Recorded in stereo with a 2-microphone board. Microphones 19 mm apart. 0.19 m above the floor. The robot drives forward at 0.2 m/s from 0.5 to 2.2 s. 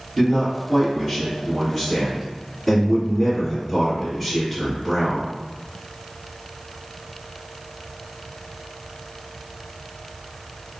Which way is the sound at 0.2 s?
5° left (ahead or behind).